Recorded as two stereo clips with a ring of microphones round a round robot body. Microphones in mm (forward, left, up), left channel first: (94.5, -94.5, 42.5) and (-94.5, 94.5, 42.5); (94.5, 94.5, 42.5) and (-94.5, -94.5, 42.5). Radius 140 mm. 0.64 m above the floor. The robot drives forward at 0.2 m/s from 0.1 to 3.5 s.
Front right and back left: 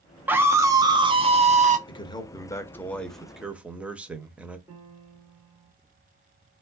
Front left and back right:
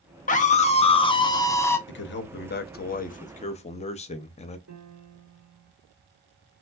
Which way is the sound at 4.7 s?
145° right.